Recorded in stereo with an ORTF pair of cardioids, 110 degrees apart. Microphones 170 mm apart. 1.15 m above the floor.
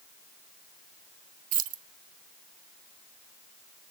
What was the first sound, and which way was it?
Keys jangling, 55° right.